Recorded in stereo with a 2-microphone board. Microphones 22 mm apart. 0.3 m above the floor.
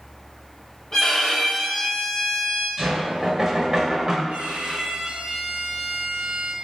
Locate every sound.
0.9 s a violin: 25° left (ahead or behind), 1.5 m
2.8 s knocking: 30° right (ahead or behind), 0.6 m
4.3 s a violin: 80° right, 0.5 m